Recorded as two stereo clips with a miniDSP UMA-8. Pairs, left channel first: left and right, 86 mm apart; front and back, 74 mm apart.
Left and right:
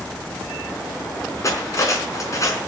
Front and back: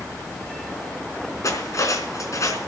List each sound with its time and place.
1.4 s cutlery clinking: 40° left, 4 m